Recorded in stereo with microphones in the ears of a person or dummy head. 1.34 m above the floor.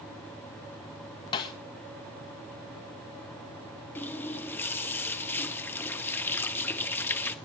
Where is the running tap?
10° left (ahead or behind), 1.2 m.